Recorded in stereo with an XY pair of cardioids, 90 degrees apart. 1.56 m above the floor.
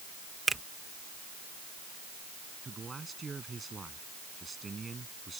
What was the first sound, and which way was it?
A finger snap, 25° right.